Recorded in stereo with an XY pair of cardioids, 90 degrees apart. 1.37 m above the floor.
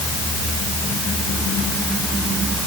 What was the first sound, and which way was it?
Only background noise.